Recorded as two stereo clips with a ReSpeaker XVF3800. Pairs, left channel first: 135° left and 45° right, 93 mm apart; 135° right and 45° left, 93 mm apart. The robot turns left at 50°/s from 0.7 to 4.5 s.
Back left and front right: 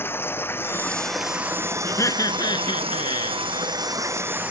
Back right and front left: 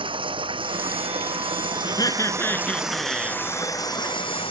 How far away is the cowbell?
No cowbell in this recording.